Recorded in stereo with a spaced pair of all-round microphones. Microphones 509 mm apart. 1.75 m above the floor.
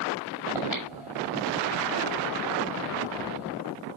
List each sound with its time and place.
0.6 s breathing: 75° left (ahead or behind), 5.5 m